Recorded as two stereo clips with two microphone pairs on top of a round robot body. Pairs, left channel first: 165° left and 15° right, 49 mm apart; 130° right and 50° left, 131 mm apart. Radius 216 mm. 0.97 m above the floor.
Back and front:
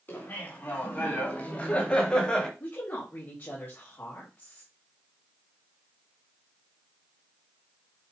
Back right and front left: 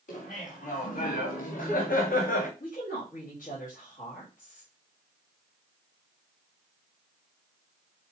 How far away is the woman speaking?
About 3.5 m.